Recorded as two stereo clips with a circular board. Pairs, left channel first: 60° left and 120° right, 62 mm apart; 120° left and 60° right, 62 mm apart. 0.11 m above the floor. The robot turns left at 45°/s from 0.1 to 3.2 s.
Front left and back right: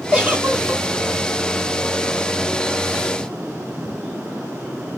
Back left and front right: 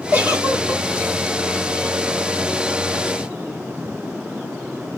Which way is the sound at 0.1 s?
70° right.